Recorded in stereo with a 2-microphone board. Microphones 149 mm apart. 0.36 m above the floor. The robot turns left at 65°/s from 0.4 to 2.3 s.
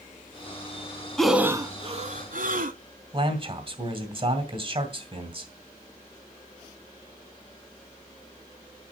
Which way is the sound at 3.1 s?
40° right (ahead or behind).